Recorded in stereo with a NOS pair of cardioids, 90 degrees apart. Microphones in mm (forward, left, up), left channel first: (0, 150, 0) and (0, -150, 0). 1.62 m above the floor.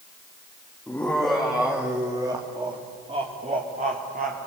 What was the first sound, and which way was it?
Laughter, 5° left.